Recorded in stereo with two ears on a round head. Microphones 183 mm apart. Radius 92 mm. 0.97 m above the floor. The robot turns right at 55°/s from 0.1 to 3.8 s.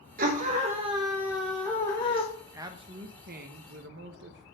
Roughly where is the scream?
Right.